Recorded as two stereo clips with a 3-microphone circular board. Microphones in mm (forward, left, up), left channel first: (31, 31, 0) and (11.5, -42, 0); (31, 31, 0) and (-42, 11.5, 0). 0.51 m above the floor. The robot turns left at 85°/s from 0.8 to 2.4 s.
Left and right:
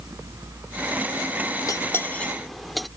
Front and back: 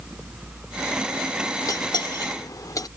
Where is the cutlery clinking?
45° left; by 2.9 s 15° right.